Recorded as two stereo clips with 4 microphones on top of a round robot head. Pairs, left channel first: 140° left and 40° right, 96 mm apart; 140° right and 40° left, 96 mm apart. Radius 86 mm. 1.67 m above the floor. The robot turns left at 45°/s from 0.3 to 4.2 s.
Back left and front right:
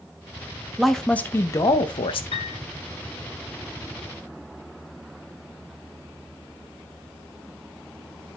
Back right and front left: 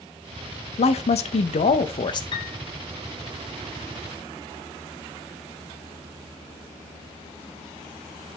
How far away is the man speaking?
About 0.7 m.